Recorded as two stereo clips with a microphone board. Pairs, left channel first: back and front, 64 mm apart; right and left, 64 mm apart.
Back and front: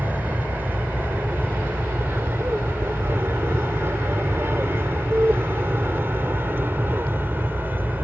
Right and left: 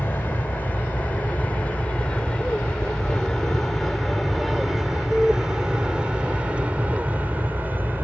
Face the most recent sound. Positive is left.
turn(degrees=45)